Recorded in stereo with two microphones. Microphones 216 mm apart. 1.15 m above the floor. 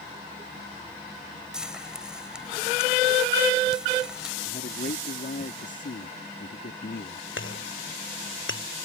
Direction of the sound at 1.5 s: 5° right (ahead or behind).